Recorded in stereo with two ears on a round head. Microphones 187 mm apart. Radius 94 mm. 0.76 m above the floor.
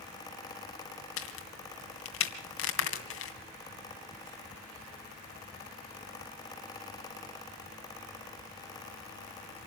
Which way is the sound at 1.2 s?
75° left (ahead or behind).